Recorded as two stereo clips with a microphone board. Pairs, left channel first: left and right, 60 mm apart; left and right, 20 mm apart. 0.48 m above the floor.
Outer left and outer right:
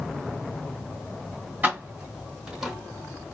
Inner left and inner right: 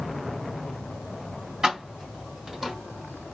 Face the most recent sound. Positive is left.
turn(degrees=-5)  # may be behind; listen again after turning